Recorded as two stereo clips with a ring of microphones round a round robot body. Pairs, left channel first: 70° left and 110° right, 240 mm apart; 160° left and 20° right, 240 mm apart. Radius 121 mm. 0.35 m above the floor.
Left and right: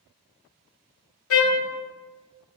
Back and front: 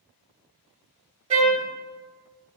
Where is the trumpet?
40° left, 0.7 m.